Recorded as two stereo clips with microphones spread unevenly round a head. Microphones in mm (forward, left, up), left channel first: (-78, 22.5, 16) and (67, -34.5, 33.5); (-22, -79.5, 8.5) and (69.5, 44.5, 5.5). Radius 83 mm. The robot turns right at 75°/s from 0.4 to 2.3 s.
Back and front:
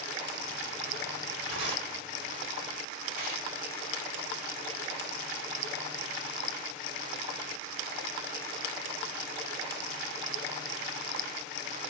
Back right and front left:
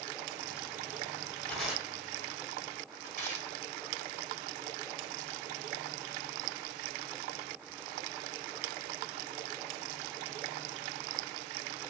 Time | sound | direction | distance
1.5 | tearing paper | 50° right | 2.0 m